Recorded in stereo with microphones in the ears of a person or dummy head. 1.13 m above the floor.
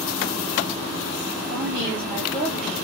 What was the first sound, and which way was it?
A woman speaking, 30° right (ahead or behind).